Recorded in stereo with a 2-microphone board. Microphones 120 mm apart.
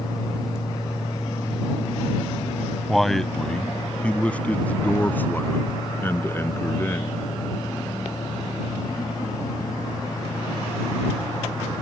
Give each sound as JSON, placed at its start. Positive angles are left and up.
{"t": 2.9, "sound": "a man speaking", "side_deg": 0}